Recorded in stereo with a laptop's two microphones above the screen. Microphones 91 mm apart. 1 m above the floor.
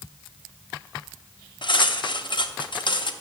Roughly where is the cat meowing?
I don't hear a cat meowing.